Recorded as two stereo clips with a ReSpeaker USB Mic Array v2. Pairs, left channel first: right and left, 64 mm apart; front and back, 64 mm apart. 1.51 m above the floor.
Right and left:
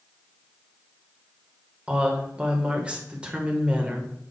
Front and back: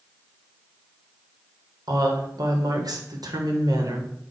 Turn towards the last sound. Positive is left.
turn(degrees=160)